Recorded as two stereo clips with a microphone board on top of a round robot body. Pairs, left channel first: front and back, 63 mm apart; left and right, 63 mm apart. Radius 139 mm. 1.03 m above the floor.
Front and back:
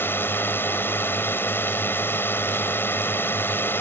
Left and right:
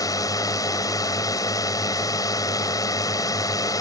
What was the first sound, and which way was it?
A drone, 60° left.